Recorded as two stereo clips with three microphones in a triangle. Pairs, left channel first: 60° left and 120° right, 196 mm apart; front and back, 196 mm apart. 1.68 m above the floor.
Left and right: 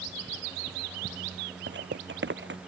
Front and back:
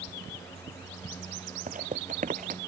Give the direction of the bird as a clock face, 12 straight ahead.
I don't hear a bird.